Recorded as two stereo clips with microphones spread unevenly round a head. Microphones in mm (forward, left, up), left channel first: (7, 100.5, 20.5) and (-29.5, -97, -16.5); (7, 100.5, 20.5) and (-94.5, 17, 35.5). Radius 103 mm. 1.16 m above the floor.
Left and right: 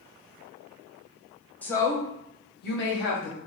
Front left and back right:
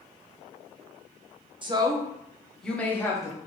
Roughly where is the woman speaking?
Behind.